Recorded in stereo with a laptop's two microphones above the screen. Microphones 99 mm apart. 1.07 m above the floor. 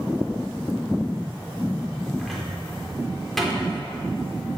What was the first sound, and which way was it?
A cupboard door, centre (ahead or behind).